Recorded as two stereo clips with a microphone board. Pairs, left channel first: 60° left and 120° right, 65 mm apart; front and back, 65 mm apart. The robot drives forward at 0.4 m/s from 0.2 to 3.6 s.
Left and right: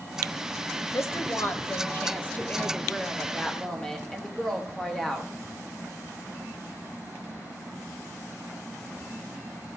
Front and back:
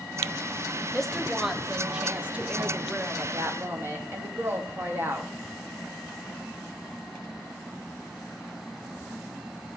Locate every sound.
0.9 s a woman speaking: 85° left, 1.1 m; by 5.3 s 140° left, 1.5 m